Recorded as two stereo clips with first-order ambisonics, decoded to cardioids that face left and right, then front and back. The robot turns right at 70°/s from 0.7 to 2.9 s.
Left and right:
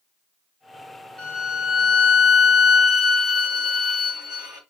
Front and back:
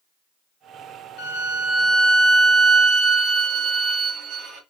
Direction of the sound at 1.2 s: 5° left.